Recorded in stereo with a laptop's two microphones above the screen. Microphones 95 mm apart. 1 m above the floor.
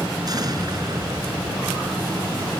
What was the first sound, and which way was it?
An explosion, 45° right (ahead or behind).